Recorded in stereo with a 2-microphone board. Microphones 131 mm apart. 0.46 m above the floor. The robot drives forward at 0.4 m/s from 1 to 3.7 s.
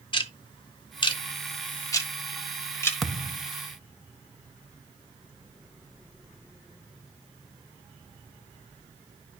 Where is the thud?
Centre (ahead or behind), 0.7 m.